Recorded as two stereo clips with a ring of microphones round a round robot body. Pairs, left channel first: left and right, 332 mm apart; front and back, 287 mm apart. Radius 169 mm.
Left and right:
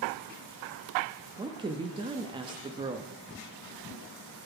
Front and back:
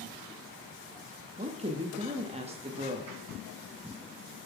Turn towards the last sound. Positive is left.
turn(degrees=-145)